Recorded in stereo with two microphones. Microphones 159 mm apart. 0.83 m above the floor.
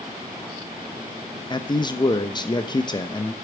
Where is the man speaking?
30° left (ahead or behind), 0.9 m.